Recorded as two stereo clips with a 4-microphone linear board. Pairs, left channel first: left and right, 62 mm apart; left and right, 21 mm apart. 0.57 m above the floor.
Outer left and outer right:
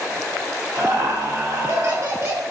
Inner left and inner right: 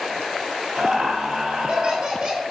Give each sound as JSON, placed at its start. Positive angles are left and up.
{"t": 0.8, "sound": "laughter", "side_deg": -45, "distance_m": 1.6}